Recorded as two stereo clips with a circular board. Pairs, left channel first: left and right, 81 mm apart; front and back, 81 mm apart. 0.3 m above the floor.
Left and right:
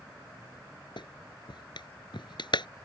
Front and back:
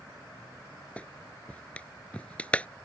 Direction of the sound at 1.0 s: 75° left.